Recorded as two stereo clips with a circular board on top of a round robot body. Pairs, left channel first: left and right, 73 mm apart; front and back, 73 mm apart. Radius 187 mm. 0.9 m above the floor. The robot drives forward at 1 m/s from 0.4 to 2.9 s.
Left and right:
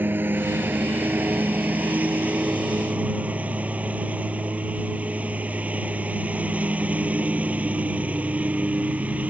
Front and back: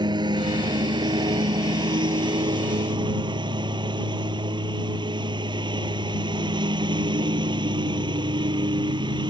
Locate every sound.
0.0 s a lawn mower: 155° right; by 9.3 s 160° right